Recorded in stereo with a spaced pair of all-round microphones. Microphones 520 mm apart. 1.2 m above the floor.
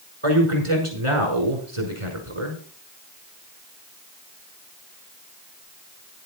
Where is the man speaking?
70° right (ahead or behind), 5.5 m.